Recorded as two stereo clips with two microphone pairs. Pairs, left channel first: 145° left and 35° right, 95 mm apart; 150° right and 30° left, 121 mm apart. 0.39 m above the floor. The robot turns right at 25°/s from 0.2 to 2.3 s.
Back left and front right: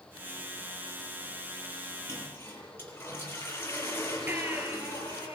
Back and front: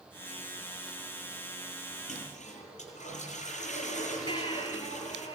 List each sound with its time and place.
2.1 s a toilet flushing: 155° right, 9 m; by 5.3 s 150° right, 9 m
4.3 s a baby crying: 105° right, 5 m